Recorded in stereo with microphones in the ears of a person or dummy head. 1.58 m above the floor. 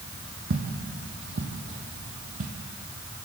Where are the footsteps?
60° right (ahead or behind), 3 m; by 2.5 s 45° right (ahead or behind), 2 m.